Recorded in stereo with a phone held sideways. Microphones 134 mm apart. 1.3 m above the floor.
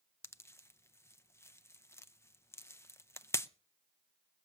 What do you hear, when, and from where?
0.2 s a pop: 20° left (ahead or behind), 0.5 m